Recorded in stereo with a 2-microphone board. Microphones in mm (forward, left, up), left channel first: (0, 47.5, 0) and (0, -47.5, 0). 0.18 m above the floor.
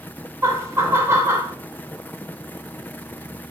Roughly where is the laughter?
Right.